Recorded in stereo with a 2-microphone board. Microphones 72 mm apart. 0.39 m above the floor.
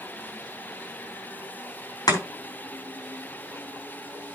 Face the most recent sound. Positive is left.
turn(degrees=60)  # may be behind; listen again after turning